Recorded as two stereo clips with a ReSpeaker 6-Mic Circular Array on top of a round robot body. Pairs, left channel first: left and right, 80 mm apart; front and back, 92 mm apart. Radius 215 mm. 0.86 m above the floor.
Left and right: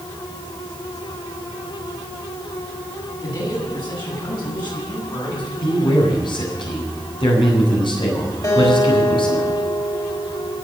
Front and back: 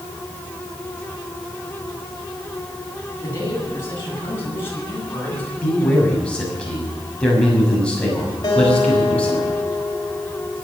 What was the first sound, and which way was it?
A man speaking, 60° left.